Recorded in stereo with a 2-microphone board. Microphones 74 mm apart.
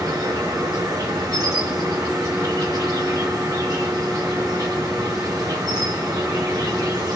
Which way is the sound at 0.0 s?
65° right (ahead or behind).